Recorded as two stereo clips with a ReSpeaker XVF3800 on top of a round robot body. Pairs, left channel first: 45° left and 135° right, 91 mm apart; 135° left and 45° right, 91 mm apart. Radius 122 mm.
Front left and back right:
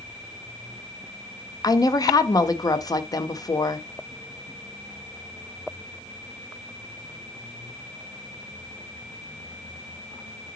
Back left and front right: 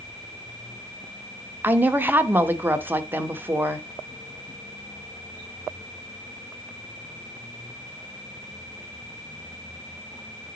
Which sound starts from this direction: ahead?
A woman speaking, at 1.6 s.